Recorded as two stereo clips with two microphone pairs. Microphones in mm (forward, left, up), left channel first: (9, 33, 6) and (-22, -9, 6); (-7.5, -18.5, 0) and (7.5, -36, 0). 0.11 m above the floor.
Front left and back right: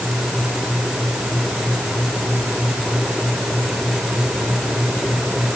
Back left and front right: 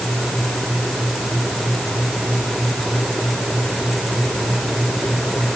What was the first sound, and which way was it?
Only background noise.